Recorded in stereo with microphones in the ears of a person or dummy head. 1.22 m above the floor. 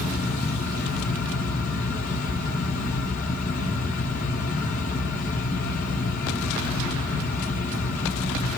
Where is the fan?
40° left (ahead or behind), 0.7 m.